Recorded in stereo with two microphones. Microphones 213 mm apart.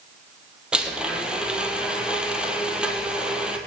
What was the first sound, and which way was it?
A blender, 5° right (ahead or behind).